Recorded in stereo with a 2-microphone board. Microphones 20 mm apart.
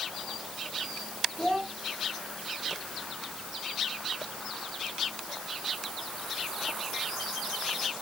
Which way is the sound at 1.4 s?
40° left (ahead or behind).